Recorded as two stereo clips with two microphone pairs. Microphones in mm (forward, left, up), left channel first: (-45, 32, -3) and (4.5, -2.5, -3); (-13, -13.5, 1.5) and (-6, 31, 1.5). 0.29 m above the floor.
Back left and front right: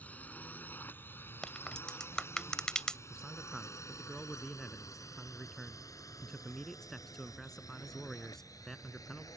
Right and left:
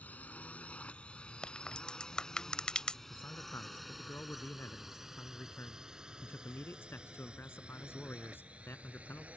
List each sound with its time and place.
0.0 s a drone: 150° right; by 9.4 s 140° left
1.4 s a crack: 150° right
3.1 s a man speaking: 130° right